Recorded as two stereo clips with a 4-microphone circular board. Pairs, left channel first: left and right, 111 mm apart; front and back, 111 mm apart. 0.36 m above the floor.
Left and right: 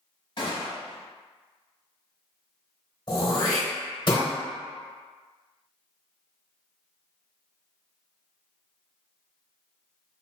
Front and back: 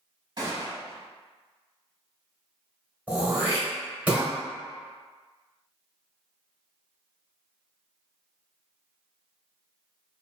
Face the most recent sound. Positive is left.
turn(degrees=110)